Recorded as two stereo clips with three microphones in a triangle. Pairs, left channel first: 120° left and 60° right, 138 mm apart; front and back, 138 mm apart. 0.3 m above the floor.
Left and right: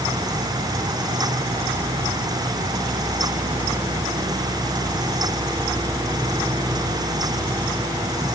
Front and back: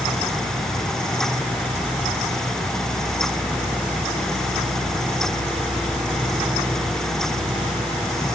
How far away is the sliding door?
No sliding door in this recording.